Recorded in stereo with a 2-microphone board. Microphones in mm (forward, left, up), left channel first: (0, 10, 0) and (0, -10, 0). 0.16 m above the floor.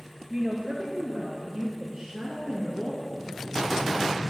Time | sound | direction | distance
0.3 | a woman speaking | 45° right (ahead or behind) | 2.5 m
3.0 | breathing | centre (ahead or behind) | 3.5 m